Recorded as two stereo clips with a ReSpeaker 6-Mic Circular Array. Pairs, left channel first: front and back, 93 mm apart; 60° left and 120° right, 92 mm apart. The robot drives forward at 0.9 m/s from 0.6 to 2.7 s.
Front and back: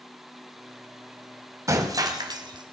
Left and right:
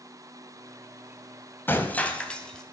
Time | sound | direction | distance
1.7 | breaking glass | 125° left | 1.8 m